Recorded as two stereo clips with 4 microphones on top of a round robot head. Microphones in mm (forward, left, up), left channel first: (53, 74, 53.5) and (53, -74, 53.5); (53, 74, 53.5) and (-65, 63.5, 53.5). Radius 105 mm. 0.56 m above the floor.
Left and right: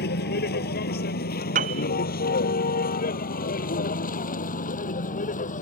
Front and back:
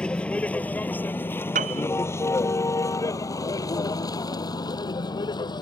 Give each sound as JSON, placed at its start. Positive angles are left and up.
{"t": 0.0, "sound": "a vehicle", "azimuth_deg": 85}
{"t": 1.6, "sound": "a piano", "azimuth_deg": -140}